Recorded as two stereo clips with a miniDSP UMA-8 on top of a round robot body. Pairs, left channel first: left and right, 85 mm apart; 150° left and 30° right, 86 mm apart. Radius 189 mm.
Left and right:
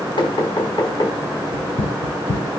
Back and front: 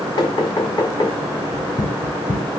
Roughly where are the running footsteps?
Left.